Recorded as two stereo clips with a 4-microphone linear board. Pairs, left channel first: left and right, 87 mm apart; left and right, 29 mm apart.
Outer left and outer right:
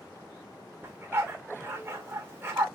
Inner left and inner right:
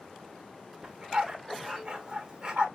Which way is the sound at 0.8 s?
30° right (ahead or behind).